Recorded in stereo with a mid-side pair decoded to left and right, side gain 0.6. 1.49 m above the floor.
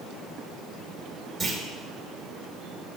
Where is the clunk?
10° right, 3 m.